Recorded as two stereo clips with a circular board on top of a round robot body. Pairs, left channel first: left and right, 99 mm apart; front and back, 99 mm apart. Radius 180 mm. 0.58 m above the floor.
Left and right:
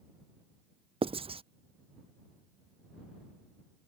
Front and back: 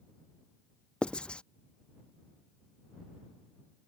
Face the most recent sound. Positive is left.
turn(degrees=-80)